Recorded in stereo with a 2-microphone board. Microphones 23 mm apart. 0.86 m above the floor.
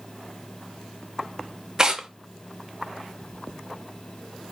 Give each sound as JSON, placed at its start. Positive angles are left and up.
{"t": 1.8, "sound": "tearing paper", "side_deg": -30, "distance_m": 0.6}